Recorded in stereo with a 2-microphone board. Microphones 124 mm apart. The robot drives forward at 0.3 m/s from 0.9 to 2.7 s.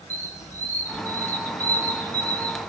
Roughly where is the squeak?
Left.